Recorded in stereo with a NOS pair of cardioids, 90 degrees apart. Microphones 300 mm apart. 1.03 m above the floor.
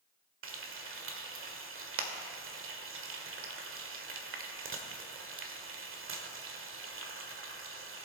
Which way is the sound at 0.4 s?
45° right.